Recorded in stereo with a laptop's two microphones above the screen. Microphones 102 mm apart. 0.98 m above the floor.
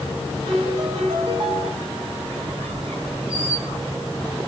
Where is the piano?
60° right (ahead or behind), 5 m.